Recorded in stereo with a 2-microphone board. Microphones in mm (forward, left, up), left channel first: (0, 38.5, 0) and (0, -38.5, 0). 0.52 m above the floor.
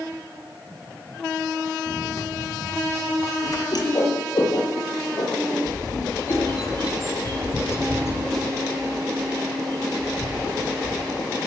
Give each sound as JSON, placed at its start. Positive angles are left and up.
{"t": 1.9, "sound": "running footsteps", "side_deg": 50, "distance_m": 7.0}
{"t": 3.7, "sound": "a whoosh", "side_deg": 55, "distance_m": 7.0}
{"t": 5.7, "sound": "a bird", "side_deg": 35, "distance_m": 5.0}